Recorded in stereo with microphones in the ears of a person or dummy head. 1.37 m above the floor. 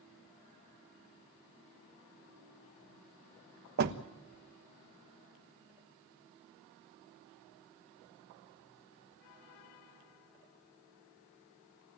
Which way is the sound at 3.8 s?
50° right (ahead or behind).